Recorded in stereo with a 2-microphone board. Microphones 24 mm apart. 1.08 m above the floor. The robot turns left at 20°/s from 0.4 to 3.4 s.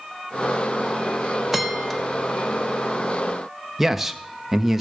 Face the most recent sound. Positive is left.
turn(degrees=-10)  # may be behind; listen again after turning